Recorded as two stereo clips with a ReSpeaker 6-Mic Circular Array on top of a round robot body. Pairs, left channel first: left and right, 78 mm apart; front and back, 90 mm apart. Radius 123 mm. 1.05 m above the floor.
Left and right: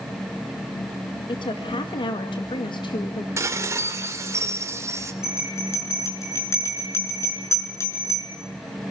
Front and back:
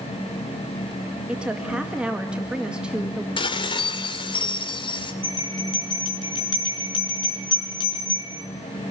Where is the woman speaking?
100° left, 2 m.